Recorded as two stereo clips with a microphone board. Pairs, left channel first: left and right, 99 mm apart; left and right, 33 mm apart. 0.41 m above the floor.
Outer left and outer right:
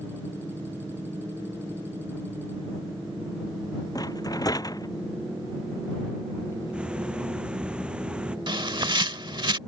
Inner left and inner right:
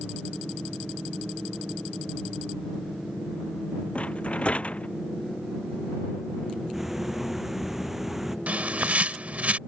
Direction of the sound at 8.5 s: 55° right (ahead or behind).